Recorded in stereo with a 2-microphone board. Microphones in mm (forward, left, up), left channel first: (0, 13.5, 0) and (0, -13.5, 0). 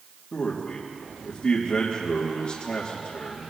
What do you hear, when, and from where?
0.3 s a man speaking: 45° left (ahead or behind), 3 m